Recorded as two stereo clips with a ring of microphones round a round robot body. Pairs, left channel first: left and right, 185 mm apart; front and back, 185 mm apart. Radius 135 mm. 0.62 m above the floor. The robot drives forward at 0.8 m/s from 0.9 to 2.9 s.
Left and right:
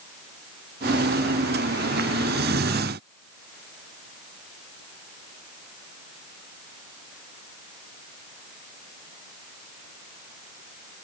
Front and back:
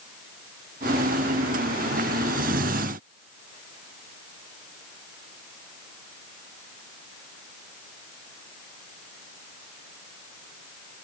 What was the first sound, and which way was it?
Only background noise.